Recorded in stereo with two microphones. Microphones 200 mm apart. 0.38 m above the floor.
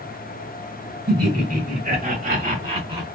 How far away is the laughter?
About 2.5 m.